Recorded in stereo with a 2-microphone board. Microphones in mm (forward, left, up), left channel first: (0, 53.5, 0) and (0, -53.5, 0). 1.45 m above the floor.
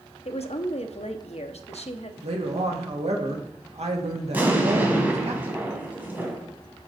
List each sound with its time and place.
0.2 s a woman speaking: 80° left, 0.8 m
2.2 s a woman speaking: 80° right, 1.9 m
4.3 s an explosion: 15° right (ahead or behind), 2.0 m